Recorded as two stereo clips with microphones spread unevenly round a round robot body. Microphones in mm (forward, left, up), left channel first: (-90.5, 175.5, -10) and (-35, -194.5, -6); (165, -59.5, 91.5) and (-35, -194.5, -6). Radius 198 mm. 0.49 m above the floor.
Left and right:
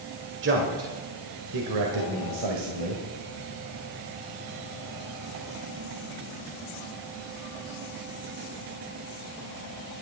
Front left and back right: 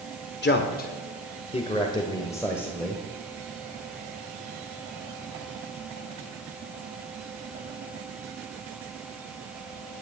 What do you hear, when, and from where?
0.4 s a man speaking: 20° right, 1.8 m; by 3.0 s 60° right, 2.5 m